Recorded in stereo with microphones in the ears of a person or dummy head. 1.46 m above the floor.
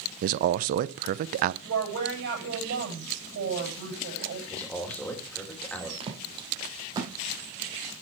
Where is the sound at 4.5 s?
10° left (ahead or behind), 3 m.